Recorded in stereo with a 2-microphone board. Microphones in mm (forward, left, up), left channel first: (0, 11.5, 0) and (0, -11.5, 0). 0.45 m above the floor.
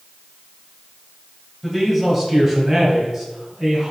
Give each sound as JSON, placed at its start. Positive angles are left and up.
{"t": 1.6, "sound": "a man speaking", "side_deg": -5, "distance_m": 2.0}